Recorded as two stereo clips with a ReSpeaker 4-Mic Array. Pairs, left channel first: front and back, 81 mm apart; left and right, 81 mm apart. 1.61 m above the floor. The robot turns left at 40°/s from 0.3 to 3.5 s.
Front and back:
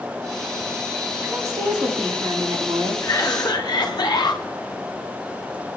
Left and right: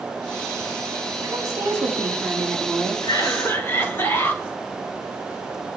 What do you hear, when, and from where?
1.2 s a woman speaking: 120° right, 3.5 m; by 2.9 s 170° left, 3.5 m
3.0 s a cough: 50° left, 2.5 m; by 4.4 s 30° left, 2.5 m